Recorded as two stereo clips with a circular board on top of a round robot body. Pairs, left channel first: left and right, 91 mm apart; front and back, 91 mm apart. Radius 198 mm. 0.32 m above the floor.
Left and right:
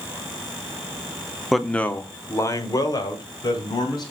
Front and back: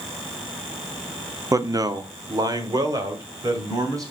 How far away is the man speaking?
About 1.0 m.